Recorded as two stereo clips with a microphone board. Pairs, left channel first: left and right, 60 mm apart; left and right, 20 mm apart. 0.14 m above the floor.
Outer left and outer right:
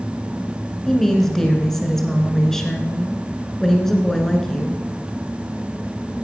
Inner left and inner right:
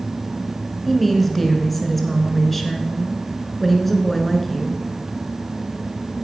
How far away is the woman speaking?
About 1.9 m.